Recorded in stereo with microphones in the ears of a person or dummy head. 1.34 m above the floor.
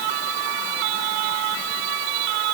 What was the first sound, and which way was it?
Only background noise.